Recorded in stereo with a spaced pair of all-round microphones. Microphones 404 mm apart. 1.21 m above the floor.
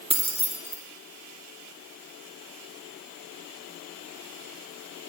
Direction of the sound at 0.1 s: 15° right (ahead or behind).